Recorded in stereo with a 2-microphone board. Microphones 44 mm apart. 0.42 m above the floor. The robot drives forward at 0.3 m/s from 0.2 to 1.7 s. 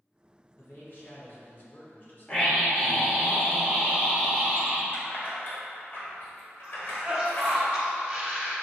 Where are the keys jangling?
45° left (ahead or behind), 1.1 m.